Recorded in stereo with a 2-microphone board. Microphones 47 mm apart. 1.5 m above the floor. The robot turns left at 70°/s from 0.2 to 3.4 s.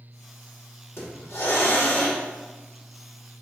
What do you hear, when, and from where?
1.0 s a hiss: 125° left, 2.5 m; by 2.2 s 35° left, 2.5 m